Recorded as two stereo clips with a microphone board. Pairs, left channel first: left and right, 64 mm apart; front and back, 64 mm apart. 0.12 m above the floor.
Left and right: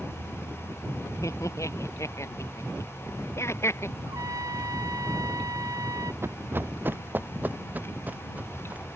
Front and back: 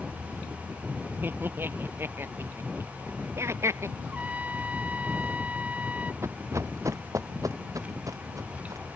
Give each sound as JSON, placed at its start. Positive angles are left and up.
{"t": 1.2, "sound": "laughter", "azimuth_deg": 120}
{"t": 4.1, "sound": "a trumpet", "azimuth_deg": -115}
{"t": 6.2, "sound": "running footsteps", "azimuth_deg": -135}